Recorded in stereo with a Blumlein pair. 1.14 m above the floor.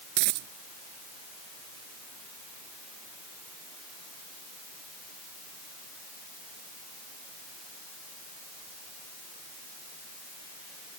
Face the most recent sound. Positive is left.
turn(degrees=-40)